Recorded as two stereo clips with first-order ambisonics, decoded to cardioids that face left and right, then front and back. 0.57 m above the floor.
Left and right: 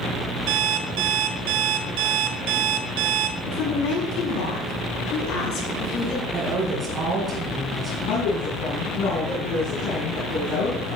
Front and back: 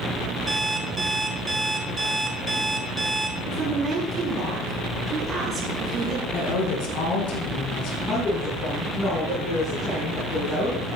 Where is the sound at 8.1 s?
70° left, 5 m.